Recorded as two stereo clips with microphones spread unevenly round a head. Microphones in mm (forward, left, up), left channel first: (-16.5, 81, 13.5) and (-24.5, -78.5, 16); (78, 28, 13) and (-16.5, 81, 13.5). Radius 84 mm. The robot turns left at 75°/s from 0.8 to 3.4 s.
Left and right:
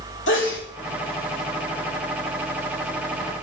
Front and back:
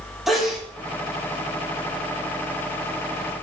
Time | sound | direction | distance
0.3 | a sneeze | 65° left | 3 m